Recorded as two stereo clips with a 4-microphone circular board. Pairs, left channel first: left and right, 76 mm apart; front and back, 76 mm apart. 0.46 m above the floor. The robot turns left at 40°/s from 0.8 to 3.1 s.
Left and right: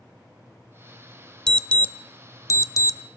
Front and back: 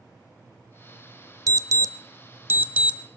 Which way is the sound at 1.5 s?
170° left.